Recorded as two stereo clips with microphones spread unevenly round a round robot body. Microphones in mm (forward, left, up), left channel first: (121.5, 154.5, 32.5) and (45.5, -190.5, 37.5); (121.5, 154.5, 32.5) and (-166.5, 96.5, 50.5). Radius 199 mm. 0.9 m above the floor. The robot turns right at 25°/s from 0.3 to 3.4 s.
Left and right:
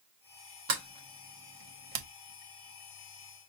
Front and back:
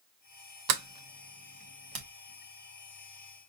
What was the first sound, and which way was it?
A sliding door, 165° right.